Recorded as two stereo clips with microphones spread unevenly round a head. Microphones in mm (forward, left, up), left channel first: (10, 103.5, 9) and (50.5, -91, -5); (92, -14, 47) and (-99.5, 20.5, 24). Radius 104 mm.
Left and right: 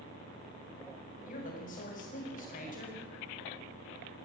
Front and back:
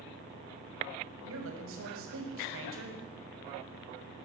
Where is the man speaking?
155° left, 7 m.